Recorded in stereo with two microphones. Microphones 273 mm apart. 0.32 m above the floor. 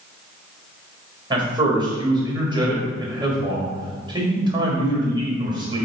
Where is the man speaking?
15° right (ahead or behind), 1.2 m.